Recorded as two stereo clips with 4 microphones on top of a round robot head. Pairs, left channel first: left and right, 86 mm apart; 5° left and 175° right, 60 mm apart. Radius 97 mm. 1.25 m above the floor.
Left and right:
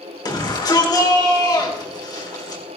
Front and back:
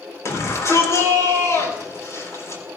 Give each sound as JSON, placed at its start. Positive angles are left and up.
{"t": 0.2, "sound": "a shout", "azimuth_deg": 45, "distance_m": 4.0}